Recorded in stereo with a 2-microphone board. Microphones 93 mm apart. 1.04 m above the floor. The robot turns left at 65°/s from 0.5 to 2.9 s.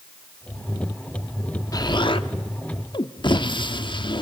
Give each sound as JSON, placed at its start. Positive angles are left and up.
{"t": 1.7, "sound": "an explosion", "azimuth_deg": 135, "distance_m": 1.0}